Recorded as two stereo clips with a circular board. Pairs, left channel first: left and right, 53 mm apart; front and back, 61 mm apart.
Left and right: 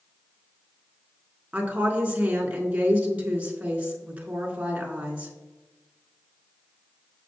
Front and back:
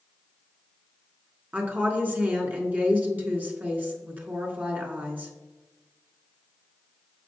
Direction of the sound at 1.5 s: 140° right.